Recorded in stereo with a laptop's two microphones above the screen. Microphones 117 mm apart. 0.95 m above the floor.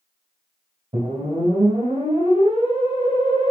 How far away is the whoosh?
About 2.5 m.